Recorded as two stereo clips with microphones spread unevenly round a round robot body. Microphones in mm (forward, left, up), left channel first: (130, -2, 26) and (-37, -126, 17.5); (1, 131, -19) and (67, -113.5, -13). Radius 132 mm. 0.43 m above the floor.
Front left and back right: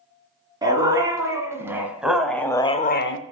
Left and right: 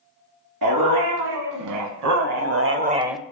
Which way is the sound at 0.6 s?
70° right.